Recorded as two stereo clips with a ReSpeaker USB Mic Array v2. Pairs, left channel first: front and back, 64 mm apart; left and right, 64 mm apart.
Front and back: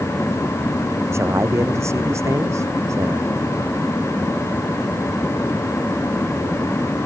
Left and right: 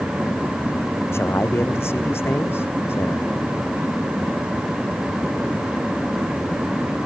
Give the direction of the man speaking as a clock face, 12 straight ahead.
7 o'clock.